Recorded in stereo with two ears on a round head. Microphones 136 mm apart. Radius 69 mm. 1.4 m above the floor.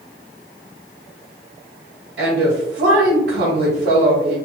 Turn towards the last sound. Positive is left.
turn(degrees=-75)  # may be behind; listen again after turning